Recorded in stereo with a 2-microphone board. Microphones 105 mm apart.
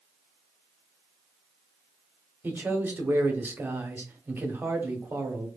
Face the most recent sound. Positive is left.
turn(degrees=-20)  # may be behind; listen again after turning